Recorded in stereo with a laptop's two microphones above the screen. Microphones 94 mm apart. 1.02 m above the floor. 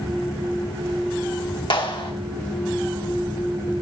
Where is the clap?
60° left (ahead or behind), 1.5 m.